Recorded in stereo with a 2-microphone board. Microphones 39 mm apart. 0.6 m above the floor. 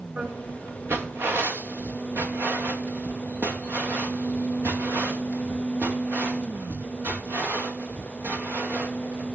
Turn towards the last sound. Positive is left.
turn(degrees=-75)  # may be behind; listen again after turning